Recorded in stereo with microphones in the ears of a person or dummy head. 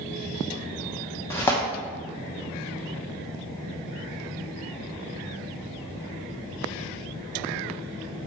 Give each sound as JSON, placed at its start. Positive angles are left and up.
{"t": 1.3, "sound": "tearing paper", "side_deg": 15, "distance_m": 1.0}